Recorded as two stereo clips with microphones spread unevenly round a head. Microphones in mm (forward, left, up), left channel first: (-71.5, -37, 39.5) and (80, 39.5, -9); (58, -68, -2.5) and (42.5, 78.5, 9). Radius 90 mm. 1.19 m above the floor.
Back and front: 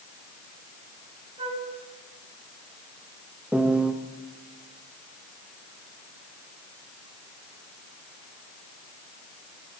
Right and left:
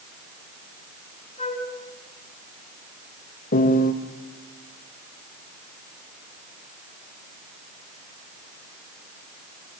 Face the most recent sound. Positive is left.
turn(degrees=-70)